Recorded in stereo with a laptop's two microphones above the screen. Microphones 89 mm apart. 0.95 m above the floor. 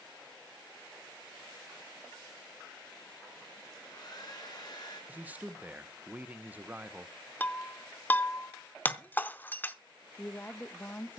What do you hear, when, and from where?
3.7 s a hair dryer: 50° left (ahead or behind), 4.5 m
5.1 s a man speaking: 20° right (ahead or behind), 0.7 m
7.4 s breaking glass: 20° left (ahead or behind), 0.7 m
10.2 s a woman speaking: 20° left (ahead or behind), 0.6 m